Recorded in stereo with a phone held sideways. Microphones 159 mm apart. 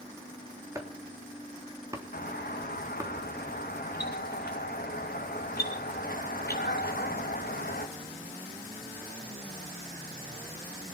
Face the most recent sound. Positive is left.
turn(degrees=75)  # may be behind; listen again after turning